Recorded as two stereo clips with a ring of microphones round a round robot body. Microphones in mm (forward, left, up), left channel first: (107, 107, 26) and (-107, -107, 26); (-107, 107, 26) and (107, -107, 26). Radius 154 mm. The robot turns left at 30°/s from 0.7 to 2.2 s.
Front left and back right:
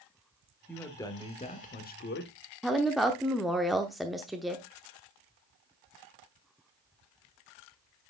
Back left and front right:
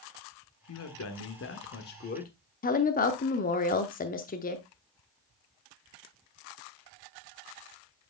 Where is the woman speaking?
135° left, 0.8 m.